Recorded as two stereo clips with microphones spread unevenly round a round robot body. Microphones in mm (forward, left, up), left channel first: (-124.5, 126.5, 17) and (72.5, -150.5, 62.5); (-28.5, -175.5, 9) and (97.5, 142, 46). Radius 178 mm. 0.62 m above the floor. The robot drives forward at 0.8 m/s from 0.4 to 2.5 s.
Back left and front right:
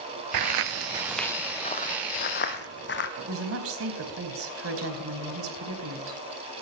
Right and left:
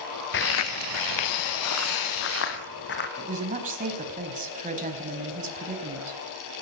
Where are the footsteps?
55° right, 0.9 m; by 3.1 s 175° right, 2.5 m.